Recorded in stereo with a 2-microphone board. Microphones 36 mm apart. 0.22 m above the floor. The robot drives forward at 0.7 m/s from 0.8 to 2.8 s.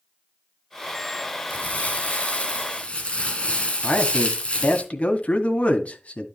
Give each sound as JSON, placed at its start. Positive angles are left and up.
{"t": 1.5, "sound": "crumpling", "side_deg": 40, "distance_m": 2.5}
{"t": 3.8, "sound": "a man speaking", "side_deg": 40, "distance_m": 2.0}